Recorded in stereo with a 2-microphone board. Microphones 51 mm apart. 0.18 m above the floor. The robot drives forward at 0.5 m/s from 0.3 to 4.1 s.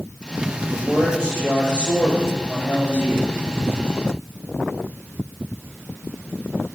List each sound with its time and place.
0.7 s a man speaking: 15° left (ahead or behind), 3.5 m; by 3.3 s 25° left (ahead or behind), 2 m